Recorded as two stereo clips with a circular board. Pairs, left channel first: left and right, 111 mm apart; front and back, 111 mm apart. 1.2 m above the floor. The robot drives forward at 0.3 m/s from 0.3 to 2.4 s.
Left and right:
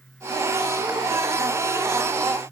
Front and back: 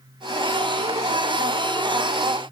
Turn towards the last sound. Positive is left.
No sound to turn to.